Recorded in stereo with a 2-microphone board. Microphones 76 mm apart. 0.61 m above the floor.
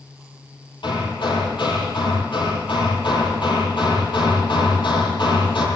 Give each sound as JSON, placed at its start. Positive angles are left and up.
{"t": 0.8, "sound": "hammering", "side_deg": 90, "distance_m": 8.0}